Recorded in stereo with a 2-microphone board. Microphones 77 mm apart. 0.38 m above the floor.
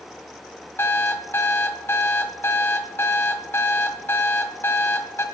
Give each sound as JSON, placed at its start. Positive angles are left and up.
{"t": 0.8, "sound": "an alarm clock", "side_deg": 30, "distance_m": 1.5}